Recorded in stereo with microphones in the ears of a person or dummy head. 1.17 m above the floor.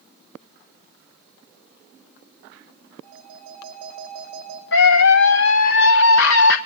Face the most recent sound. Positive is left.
turn(degrees=65)  # may be behind; listen again after turning